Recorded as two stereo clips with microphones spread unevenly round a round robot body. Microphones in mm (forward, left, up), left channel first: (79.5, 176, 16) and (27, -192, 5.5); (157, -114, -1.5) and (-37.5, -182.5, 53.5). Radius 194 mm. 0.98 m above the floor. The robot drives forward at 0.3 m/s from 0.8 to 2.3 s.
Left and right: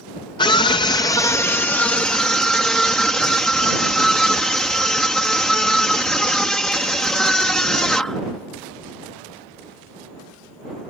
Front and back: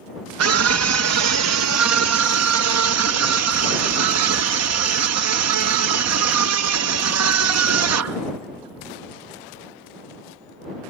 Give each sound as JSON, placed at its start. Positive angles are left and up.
{"t": 0.4, "sound": "a scream", "azimuth_deg": 160}